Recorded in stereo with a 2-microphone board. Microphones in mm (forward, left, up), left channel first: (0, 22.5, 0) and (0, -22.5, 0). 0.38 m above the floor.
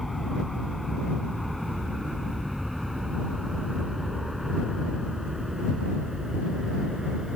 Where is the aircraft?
Centre (ahead or behind); by 7.4 s 15° right (ahead or behind).